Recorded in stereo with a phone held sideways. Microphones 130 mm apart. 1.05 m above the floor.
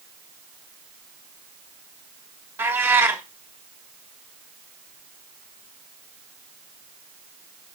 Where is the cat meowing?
20° right (ahead or behind), 1.2 m.